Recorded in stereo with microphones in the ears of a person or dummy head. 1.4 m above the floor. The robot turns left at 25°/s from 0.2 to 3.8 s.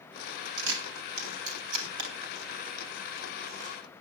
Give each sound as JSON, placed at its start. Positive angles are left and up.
{"t": 0.6, "sound": "a camera shutter", "side_deg": -80, "distance_m": 2.5}